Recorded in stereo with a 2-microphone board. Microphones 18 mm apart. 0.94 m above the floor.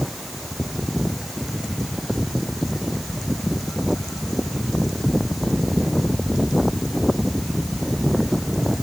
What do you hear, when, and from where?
Only background noise.